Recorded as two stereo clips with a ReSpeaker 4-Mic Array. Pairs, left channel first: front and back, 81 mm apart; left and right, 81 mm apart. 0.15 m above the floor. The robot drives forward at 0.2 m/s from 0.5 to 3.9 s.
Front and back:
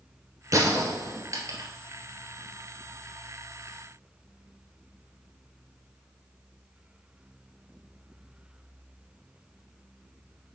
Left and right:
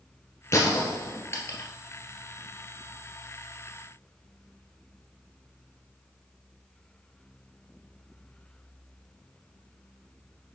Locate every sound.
0.5 s a gunshot: 140° left, 1.7 m; by 1.7 s 145° left, 1.9 m